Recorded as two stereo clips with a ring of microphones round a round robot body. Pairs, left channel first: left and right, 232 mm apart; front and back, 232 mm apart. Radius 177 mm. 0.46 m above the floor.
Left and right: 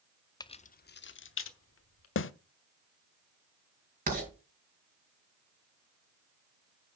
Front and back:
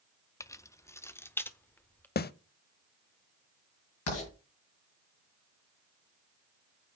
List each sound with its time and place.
0.4 s keys jangling: 55° left, 0.6 m; by 2.1 s 80° left, 1.5 m
2.2 s a snare drum: 50° left, 0.6 m
4.1 s writing: 35° right, 6 m